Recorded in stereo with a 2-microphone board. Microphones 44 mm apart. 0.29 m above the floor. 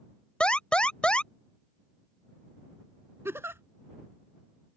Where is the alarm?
25° left (ahead or behind).